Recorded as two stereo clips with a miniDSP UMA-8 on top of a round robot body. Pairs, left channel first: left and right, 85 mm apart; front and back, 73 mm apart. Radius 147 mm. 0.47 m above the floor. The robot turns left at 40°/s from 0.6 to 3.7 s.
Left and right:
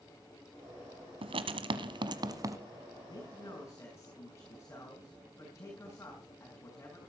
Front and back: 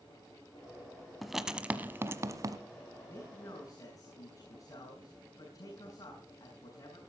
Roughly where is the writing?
Right.